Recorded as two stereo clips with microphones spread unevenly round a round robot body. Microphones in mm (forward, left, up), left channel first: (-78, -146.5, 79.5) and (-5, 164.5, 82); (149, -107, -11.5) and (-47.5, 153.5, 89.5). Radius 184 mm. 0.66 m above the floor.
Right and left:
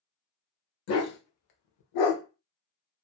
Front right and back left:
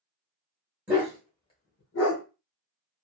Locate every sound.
0.9 s a dog barking: 150° right, 1.0 m; by 2.2 s 95° right, 0.7 m